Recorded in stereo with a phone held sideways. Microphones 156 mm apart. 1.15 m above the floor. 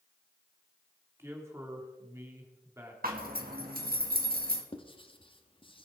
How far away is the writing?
About 1.1 m.